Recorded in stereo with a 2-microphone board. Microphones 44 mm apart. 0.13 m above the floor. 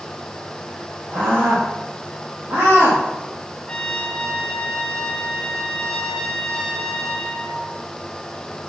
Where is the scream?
65° right (ahead or behind), 6 m.